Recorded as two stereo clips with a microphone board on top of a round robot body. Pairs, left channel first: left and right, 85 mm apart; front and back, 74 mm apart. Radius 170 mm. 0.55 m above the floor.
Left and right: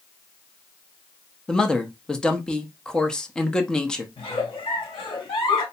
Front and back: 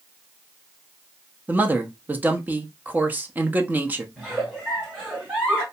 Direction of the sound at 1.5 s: 160° left.